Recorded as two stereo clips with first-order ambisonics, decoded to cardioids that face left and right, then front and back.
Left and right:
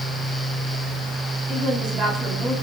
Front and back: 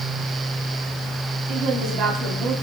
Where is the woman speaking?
145° right, 6 m.